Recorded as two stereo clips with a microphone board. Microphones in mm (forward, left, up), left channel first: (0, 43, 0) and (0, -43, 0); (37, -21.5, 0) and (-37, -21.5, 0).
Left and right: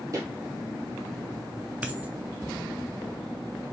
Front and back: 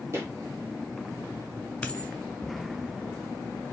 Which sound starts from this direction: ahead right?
A dropped coin, at 1.8 s.